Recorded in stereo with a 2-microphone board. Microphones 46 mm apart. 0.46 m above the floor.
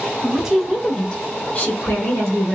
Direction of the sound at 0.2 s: 10° right (ahead or behind).